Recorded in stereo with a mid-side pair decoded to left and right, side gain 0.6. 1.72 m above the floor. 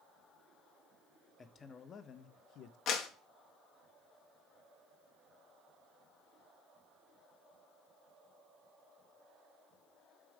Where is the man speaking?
30° left, 1.2 m; by 2.8 s 65° left, 0.9 m.